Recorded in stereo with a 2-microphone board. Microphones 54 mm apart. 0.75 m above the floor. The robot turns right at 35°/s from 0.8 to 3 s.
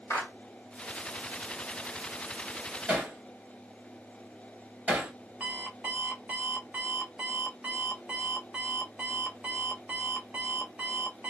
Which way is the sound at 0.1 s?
65° left (ahead or behind).